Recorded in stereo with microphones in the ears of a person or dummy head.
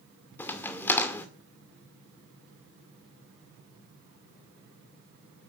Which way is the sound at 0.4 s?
10° left (ahead or behind).